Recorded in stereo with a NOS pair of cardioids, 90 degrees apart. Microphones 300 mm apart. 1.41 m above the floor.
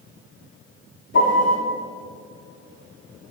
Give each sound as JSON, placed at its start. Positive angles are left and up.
{"t": 1.1, "sound": "a piano", "azimuth_deg": 40, "distance_m": 2.5}